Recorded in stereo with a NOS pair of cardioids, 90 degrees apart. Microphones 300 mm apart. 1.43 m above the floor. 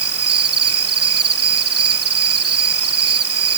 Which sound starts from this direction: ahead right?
An insect, at 0.0 s.